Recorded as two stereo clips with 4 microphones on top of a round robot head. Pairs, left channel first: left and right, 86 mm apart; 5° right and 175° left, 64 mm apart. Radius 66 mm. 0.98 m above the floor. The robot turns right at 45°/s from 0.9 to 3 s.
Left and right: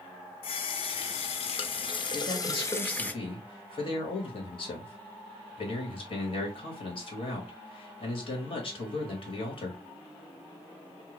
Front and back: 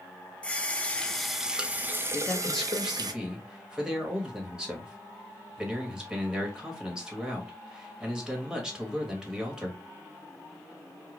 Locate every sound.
0.4 s a running tap: 70° left, 0.6 m; by 3.1 s 165° left, 0.6 m
2.1 s a man speaking: 60° left, 1.6 m; by 9.8 s 95° left, 1.6 m